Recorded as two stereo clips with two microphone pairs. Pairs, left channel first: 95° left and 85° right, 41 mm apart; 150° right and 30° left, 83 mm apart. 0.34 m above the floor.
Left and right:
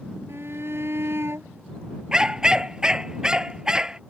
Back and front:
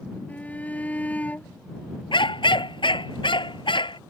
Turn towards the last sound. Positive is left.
turn(degrees=-155)